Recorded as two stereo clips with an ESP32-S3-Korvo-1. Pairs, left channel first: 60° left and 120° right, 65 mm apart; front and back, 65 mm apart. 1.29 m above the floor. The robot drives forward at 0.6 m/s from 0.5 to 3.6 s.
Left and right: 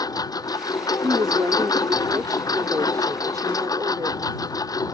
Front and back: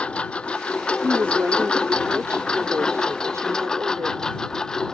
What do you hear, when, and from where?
0.0 s a lawn mower: 75° left; by 4.9 s 80° left
1.0 s a woman speaking: 120° right; by 4.2 s 140° right